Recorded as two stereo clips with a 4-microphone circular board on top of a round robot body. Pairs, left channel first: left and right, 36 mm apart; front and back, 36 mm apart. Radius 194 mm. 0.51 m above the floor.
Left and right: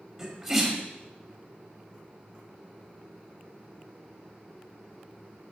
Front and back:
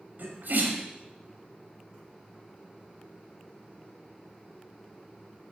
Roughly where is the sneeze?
Behind.